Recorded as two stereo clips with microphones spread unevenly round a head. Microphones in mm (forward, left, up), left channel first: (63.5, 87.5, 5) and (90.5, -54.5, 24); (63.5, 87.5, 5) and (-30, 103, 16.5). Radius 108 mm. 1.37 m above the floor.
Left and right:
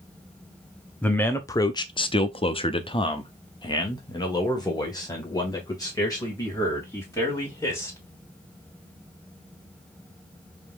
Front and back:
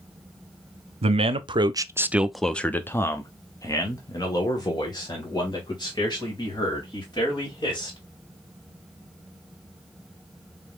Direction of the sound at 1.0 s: 175° left.